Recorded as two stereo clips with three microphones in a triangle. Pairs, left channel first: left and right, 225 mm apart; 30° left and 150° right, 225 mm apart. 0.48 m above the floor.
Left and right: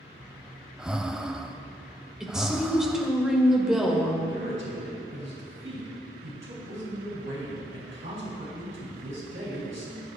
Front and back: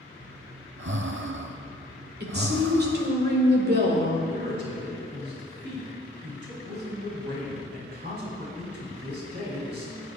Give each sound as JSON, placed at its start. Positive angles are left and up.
{"t": 0.2, "sound": "breathing", "azimuth_deg": -175, "distance_m": 0.6}
{"t": 2.2, "sound": "a woman speaking", "azimuth_deg": -175, "distance_m": 2.0}
{"t": 4.3, "sound": "a man speaking", "azimuth_deg": -115, "distance_m": 3.5}